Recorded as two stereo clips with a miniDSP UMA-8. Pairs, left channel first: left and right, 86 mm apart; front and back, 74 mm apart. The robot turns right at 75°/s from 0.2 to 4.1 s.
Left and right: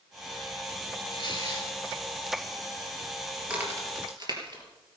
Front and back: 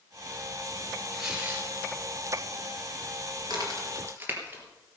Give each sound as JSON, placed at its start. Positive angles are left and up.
{"t": 1.1, "sound": "tearing paper", "azimuth_deg": 85, "distance_m": 3.5}
{"t": 3.4, "sound": "a crack", "azimuth_deg": -170, "distance_m": 3.5}